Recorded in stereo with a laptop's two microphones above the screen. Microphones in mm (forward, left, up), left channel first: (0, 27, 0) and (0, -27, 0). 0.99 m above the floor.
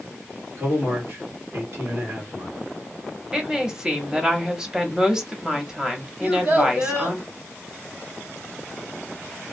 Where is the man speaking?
60° right (ahead or behind), 1.6 m.